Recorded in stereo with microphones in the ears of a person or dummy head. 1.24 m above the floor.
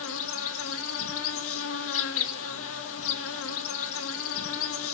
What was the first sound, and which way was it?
An insect, 70° left (ahead or behind).